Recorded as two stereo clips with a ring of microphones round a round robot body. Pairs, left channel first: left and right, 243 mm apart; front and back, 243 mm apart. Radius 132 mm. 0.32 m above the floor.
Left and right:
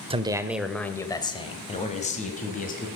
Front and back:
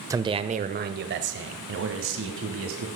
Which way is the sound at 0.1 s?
120° right.